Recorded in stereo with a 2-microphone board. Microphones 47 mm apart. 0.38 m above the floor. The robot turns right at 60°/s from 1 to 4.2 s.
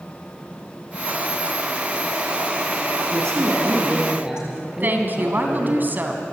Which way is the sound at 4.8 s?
40° right (ahead or behind).